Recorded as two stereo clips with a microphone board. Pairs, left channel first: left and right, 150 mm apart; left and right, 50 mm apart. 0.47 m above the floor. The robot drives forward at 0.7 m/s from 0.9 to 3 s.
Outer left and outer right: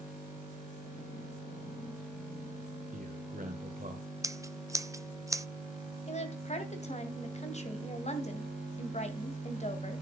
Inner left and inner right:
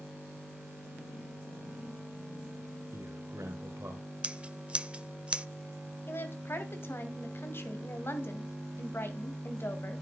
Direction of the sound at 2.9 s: 65° right (ahead or behind).